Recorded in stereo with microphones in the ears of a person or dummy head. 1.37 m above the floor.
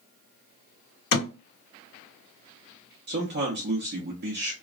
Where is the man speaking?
50° right (ahead or behind), 0.7 m.